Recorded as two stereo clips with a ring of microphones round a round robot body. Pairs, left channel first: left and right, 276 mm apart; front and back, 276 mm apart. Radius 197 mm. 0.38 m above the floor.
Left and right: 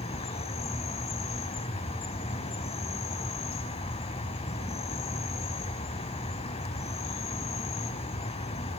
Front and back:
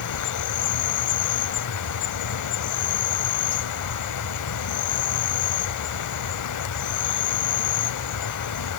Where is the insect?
15° left, 0.8 m.